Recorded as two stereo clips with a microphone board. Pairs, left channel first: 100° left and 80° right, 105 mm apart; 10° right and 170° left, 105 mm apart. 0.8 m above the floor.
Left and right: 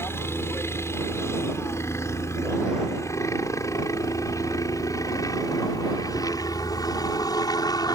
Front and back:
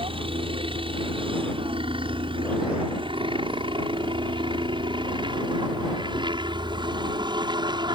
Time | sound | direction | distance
0.0 | a helicopter | 165° left | ?